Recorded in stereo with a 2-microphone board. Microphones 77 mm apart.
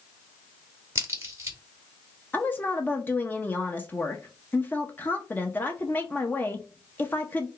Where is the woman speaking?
25° left (ahead or behind), 0.6 m.